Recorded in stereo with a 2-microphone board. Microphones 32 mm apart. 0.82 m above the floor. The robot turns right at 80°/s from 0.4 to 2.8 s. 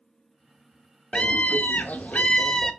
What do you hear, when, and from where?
1.1 s a scream: 40° left, 0.5 m; by 2.7 s 165° left, 0.5 m